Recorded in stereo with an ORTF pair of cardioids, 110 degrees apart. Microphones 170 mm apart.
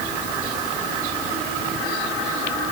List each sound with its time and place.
Only background noise.